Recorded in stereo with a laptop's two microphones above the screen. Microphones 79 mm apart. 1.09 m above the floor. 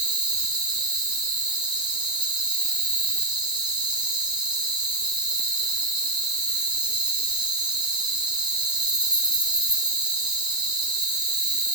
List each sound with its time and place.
0.0 s an insect: 70° right (ahead or behind), 9.5 m